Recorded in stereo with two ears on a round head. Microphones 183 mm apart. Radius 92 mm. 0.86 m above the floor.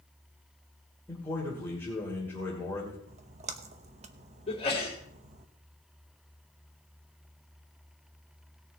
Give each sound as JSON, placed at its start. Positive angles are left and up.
{"t": 1.1, "sound": "a man speaking", "side_deg": 10, "distance_m": 2.5}
{"t": 3.1, "sound": "a splash", "side_deg": -35, "distance_m": 0.9}
{"t": 4.5, "sound": "a sneeze", "side_deg": 30, "distance_m": 3.0}